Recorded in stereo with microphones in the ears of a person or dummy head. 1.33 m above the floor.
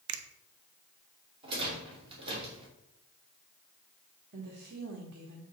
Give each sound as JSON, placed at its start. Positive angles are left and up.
{"t": 0.1, "sound": "a finger snap", "side_deg": -75, "distance_m": 0.9}
{"t": 1.4, "sound": "a rattle", "side_deg": -30, "distance_m": 2.5}
{"t": 4.3, "sound": "a woman speaking", "side_deg": -65, "distance_m": 1.4}